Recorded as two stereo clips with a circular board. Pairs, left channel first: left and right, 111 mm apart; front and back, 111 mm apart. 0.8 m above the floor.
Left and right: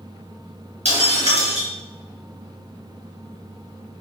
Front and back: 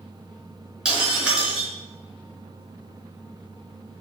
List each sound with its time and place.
0.8 s breaking glass: 100° right, 4 m